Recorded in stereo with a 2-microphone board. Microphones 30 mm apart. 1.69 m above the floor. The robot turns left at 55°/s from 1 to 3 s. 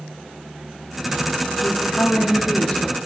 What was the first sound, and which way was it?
A woman speaking, 110° left.